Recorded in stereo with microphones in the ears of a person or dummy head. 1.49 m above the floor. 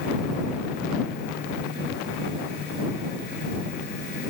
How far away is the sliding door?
I don't hear a sliding door.